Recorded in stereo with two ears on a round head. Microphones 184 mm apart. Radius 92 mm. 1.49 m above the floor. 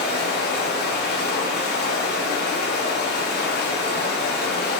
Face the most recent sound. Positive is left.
turn(degrees=50)  # may be behind; listen again after turning